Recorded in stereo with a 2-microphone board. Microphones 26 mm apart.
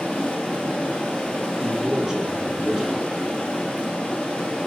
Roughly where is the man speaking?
Right.